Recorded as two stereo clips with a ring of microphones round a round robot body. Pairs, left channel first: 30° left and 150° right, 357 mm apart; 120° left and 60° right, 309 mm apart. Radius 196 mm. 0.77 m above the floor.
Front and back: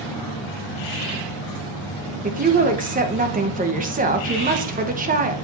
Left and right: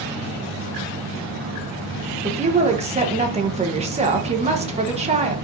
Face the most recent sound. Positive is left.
turn(degrees=-105)